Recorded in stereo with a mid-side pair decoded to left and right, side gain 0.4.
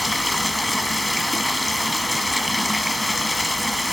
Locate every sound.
0.0 s running water: 10° left, 1.6 m